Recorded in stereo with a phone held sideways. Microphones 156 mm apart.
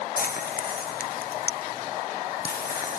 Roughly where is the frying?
Left.